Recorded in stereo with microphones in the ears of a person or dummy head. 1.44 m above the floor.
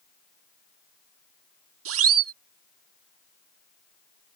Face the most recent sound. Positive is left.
turn(degrees=-85)